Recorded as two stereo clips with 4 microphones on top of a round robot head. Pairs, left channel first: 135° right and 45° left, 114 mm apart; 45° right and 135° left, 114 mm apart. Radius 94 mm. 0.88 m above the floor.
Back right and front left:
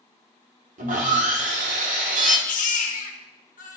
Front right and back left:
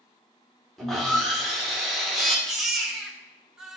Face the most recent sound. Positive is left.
turn(degrees=-135)